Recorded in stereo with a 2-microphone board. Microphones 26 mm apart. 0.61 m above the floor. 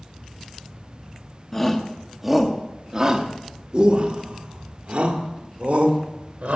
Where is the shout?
15° left (ahead or behind), 1.1 m; by 6.6 s 65° right (ahead or behind), 3 m.